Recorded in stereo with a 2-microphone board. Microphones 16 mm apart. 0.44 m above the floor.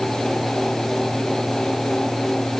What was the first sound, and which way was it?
Only background noise.